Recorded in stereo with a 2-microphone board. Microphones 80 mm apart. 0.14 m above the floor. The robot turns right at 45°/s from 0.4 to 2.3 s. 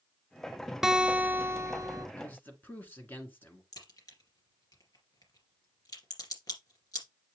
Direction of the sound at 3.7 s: 55° left (ahead or behind).